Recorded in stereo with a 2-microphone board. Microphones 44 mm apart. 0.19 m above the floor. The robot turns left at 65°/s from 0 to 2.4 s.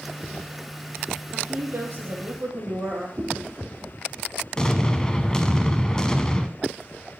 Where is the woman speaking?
55° right, 4 m; by 3.1 s 125° right, 4 m.